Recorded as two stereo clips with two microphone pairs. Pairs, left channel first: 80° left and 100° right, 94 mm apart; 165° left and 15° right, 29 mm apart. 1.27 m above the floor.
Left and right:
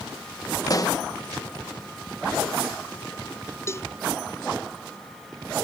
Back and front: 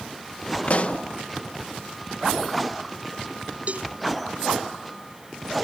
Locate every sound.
0.7 s a pop: 130° left
3.7 s a cowbell: 20° left